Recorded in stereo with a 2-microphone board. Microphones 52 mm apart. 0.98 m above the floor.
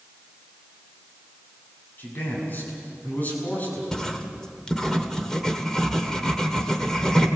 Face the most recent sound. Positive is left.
turn(degrees=10)  # may be behind; listen again after turning